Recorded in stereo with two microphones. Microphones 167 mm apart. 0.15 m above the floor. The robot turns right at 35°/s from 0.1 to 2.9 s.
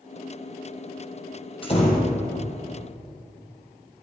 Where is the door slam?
35° left (ahead or behind), 4 m; by 2.2 s 50° left (ahead or behind), 4 m.